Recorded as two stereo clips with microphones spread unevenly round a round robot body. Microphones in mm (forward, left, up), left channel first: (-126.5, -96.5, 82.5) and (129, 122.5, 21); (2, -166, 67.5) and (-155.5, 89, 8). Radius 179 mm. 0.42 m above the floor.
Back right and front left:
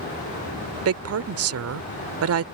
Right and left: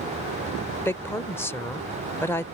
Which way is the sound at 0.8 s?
30° left.